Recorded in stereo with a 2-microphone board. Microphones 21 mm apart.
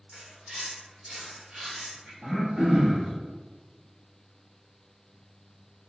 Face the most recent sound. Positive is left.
turn(degrees=-40)  # may be behind; listen again after turning